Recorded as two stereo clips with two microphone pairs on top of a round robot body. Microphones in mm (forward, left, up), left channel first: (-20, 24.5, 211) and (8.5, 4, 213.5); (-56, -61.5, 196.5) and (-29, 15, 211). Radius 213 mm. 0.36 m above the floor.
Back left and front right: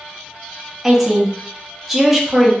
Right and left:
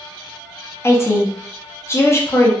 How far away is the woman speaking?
About 1.0 m.